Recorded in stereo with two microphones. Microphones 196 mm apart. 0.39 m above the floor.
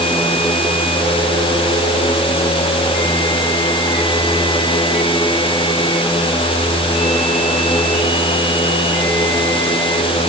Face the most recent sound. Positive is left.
No sound to turn to.